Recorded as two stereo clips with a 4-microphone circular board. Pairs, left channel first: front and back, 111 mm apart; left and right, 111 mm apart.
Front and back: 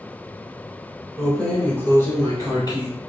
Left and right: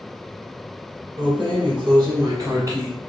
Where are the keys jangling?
90° right, 1.1 m; by 2.9 s 30° right, 1.2 m.